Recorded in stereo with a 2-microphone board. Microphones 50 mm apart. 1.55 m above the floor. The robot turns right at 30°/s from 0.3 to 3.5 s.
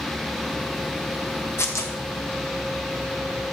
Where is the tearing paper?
65° left (ahead or behind), 1.2 m; by 1.9 s 75° left (ahead or behind), 1.2 m.